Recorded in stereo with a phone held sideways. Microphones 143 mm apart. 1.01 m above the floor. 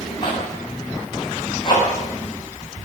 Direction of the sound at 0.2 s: 35° left (ahead or behind).